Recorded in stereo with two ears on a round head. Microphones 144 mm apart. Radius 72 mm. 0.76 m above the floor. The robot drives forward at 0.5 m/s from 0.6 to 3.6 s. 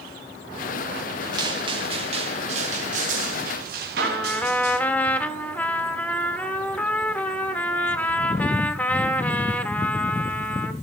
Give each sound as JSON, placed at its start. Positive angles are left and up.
{"t": 1.3, "sound": "footsteps", "side_deg": -25, "distance_m": 6.5}
{"t": 4.0, "sound": "a trumpet", "side_deg": 10, "distance_m": 1.2}